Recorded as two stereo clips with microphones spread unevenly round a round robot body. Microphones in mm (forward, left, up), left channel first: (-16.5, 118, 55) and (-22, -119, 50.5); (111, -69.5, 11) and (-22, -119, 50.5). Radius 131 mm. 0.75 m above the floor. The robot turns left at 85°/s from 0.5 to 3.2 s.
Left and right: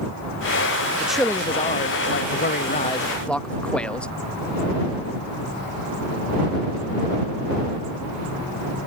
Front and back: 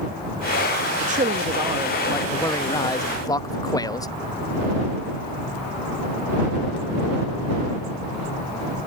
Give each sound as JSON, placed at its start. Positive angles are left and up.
{"t": 1.0, "sound": "a man speaking", "azimuth_deg": -170}